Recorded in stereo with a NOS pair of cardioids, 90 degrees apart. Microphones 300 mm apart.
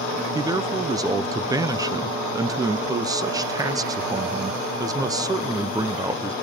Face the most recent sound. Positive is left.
turn(degrees=-10)